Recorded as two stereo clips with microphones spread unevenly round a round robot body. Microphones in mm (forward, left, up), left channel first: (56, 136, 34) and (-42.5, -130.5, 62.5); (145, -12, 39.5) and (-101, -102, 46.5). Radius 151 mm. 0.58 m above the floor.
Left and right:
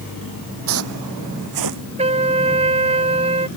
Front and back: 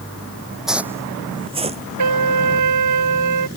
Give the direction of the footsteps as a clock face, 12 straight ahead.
2 o'clock.